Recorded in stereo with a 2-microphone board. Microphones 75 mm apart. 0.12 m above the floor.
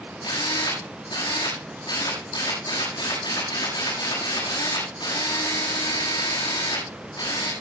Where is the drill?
75° left (ahead or behind), 7.5 m.